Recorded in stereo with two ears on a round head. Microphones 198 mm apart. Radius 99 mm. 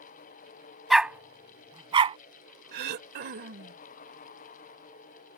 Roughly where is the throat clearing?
Right.